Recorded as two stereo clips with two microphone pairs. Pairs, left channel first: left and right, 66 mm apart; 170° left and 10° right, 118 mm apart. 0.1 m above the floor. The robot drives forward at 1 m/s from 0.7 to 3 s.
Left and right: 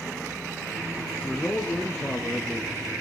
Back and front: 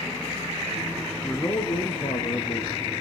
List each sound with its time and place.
1.2 s a man speaking: 135° left, 1.7 m; by 2.7 s 165° left, 2.5 m